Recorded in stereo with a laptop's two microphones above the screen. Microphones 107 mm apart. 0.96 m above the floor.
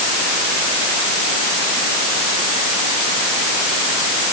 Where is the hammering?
I don't hear hammering.